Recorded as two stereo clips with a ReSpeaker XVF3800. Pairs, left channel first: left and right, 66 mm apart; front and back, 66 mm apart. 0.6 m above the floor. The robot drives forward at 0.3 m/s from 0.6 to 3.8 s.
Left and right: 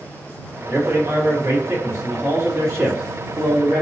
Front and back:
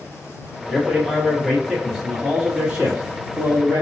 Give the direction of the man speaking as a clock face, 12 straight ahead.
3 o'clock.